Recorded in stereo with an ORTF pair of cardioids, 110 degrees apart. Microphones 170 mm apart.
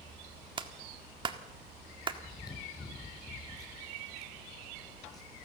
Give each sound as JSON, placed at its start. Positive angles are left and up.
{"t": 0.6, "sound": "a clap", "azimuth_deg": -30, "distance_m": 1.7}
{"t": 2.2, "sound": "chewing", "azimuth_deg": 20, "distance_m": 5.0}